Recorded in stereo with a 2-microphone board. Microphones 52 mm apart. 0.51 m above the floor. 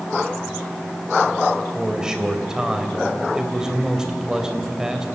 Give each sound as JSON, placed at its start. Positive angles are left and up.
{"t": 1.8, "sound": "a man speaking", "side_deg": -10, "distance_m": 3.0}